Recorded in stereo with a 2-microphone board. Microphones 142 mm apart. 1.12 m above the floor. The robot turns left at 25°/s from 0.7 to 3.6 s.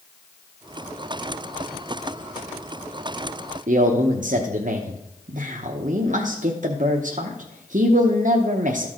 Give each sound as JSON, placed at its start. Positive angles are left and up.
{"t": 3.7, "sound": "a man speaking", "side_deg": -65, "distance_m": 0.7}